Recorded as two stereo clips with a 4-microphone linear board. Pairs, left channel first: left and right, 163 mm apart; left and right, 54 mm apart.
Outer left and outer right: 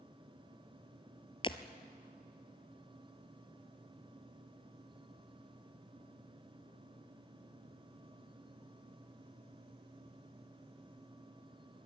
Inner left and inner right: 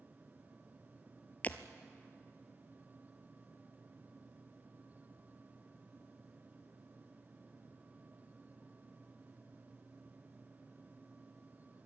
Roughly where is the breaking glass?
Left.